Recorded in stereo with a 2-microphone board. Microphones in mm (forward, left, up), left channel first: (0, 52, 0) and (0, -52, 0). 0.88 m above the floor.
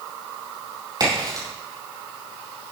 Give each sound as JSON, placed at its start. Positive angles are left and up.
{"t": 1.0, "sound": "a crack", "side_deg": -40, "distance_m": 7.0}